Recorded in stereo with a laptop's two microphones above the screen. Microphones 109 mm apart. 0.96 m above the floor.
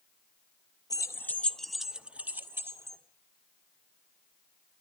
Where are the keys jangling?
35° left (ahead or behind), 0.8 m; by 3.0 s 25° right (ahead or behind), 1.5 m.